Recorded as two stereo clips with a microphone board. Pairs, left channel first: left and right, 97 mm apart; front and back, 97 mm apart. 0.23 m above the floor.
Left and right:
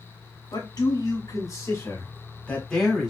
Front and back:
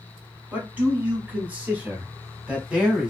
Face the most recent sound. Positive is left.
turn(degrees=-145)